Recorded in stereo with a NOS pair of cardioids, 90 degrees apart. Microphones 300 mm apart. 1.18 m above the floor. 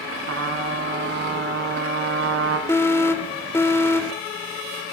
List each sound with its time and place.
0.3 s a trumpet: 50° right, 5.5 m
2.7 s an alarm: 10° left, 3 m